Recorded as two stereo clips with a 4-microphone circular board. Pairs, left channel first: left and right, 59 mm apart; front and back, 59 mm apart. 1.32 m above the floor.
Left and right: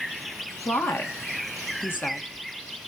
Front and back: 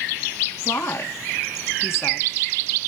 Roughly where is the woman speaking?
Ahead left.